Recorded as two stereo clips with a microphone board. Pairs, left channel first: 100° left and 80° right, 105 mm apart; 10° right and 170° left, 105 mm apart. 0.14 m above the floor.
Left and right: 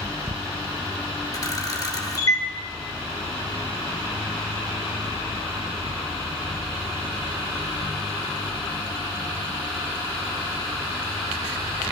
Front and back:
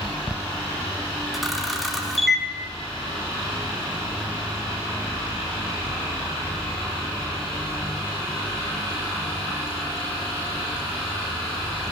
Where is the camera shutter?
80° left, 2.0 m.